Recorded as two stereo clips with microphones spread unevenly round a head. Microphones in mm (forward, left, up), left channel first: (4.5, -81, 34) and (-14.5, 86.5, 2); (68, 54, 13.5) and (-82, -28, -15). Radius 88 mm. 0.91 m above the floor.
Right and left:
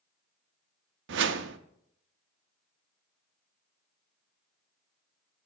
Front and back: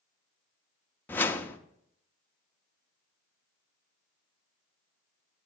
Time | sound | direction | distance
1.1 | a whoosh | 110° left | 0.6 m